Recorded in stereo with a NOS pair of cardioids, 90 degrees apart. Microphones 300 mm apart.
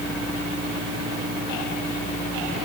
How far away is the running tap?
I don't hear a running tap.